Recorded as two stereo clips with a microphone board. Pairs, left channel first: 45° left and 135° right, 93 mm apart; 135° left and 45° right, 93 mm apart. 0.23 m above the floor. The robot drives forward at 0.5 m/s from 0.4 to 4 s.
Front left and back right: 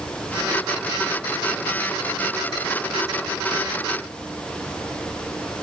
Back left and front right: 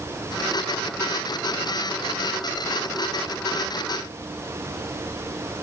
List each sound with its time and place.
Only background noise.